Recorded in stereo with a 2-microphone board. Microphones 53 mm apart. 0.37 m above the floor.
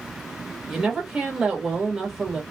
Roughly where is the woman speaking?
Centre.